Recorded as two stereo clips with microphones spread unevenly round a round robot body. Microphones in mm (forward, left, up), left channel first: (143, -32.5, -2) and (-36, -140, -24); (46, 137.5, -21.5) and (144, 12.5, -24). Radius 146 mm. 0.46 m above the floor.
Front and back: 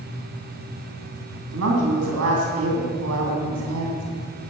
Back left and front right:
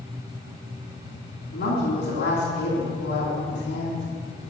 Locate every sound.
1.5 s a woman speaking: straight behind, 3 m